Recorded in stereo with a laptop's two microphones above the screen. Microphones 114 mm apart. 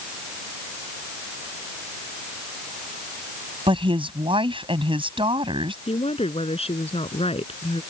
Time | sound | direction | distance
3.7 | a woman speaking | 55° right (ahead or behind) | ?
5.9 | a woman speaking | 65° left (ahead or behind) | ?